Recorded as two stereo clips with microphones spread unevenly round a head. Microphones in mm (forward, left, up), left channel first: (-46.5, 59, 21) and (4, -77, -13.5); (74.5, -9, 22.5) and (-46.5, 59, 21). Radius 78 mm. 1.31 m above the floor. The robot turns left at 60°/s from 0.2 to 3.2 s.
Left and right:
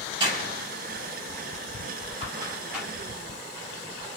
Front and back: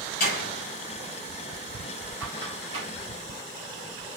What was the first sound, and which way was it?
A door slam, straight ahead.